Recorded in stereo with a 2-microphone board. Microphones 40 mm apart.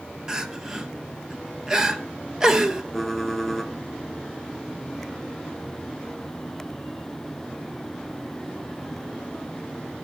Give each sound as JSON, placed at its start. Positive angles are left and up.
{"t": 0.3, "sound": "crying", "side_deg": -15, "distance_m": 1.3}
{"t": 2.9, "sound": "typing on a keyboard", "side_deg": 0, "distance_m": 1.8}